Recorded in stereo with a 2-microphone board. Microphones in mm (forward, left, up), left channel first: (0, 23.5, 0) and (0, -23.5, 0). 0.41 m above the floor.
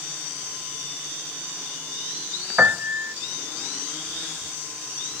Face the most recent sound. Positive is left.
turn(degrees=-30)  # may be behind; listen again after turning